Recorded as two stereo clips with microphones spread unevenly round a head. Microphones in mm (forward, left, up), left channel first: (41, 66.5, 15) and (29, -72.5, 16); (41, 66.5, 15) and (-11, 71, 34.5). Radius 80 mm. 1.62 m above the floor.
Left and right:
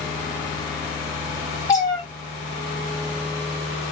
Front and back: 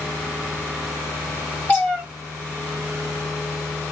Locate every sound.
1.7 s a cat meowing: 75° left, 1.0 m